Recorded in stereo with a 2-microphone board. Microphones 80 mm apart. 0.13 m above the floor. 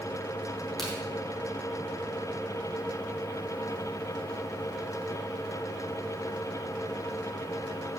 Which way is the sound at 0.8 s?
5° left (ahead or behind).